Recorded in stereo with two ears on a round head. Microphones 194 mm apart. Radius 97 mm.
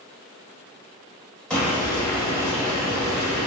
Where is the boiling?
5° left (ahead or behind), 0.9 m.